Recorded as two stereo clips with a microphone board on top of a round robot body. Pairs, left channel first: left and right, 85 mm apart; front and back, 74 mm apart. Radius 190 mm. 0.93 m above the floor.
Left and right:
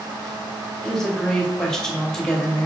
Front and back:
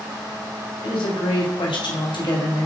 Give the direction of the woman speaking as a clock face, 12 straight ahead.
12 o'clock.